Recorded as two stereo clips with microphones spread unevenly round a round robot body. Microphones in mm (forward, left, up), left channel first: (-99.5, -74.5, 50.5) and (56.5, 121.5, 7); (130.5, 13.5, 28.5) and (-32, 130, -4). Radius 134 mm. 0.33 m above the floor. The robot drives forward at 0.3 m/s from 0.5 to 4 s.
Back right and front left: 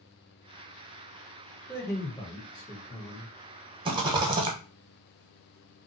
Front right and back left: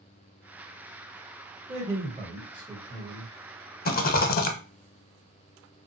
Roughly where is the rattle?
Ahead.